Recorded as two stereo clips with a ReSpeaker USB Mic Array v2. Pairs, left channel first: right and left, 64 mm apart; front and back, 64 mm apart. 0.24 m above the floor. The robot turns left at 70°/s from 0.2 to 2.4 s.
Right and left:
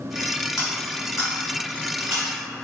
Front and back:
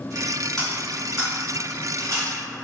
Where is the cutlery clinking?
80° right, 1.3 m; by 2.3 s 160° left, 1.3 m.